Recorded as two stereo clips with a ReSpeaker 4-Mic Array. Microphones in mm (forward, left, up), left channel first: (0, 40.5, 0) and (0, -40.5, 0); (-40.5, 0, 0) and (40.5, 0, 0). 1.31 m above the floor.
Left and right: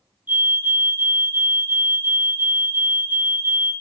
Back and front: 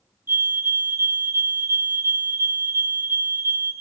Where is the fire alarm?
40° right, 1.4 m.